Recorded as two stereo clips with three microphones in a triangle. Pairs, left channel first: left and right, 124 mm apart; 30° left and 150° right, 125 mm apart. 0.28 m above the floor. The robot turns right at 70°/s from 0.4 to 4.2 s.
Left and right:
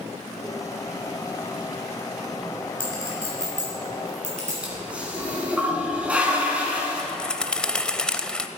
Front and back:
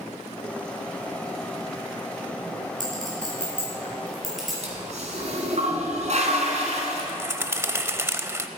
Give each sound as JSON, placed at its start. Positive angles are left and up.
{"t": 2.8, "sound": "a clink", "azimuth_deg": -160, "distance_m": 5.0}
{"t": 4.6, "sound": "a toilet flushing", "azimuth_deg": -170, "distance_m": 2.5}
{"t": 7.0, "sound": "a bird", "azimuth_deg": 165, "distance_m": 0.6}